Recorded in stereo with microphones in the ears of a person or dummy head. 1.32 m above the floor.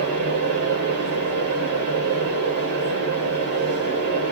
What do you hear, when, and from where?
0.0 s a fan: 40° right (ahead or behind), 3 m